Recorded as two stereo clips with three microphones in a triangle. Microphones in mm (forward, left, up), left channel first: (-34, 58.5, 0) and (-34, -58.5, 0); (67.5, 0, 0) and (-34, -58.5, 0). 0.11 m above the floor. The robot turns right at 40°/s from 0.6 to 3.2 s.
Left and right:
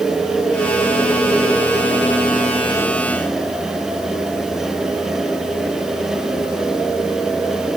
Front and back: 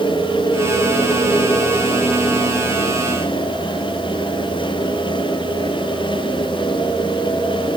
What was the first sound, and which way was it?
Only background noise.